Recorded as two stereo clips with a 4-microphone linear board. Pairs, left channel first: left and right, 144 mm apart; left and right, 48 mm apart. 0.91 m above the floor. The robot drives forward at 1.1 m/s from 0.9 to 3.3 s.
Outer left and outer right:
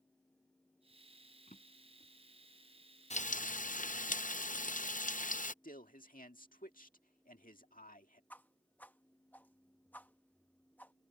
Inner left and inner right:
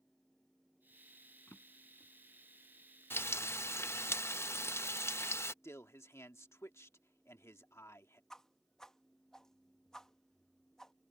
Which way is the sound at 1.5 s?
60° left (ahead or behind).